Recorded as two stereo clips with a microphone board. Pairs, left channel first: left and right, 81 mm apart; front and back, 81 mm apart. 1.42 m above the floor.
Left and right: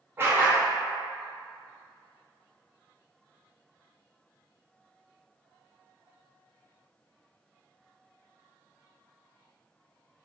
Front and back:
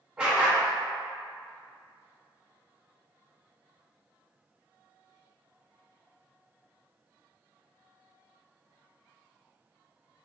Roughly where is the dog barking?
Right.